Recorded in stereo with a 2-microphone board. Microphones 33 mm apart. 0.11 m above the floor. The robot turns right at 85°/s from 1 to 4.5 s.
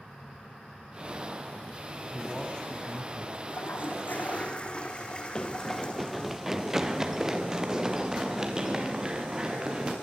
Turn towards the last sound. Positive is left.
turn(degrees=-20)  # may be behind; listen again after turning